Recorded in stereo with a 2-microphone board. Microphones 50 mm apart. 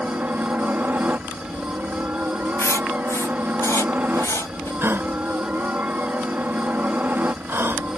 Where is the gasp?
50° right (ahead or behind).